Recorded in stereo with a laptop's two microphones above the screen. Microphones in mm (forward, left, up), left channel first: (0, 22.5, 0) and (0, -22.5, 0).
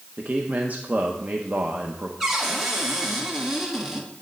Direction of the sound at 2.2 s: 10° right (ahead or behind).